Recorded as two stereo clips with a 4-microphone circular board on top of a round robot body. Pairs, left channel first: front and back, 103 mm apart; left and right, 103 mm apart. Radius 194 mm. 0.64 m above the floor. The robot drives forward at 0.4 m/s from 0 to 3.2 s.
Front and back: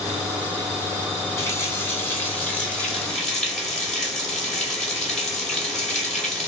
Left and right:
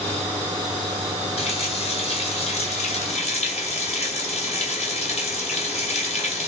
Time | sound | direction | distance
1.4 | a running tap | 65° left | 2 m